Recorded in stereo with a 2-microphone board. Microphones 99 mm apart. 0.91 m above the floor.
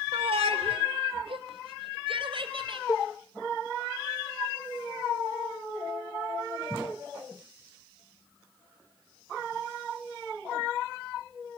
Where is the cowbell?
35° left (ahead or behind), 0.7 m.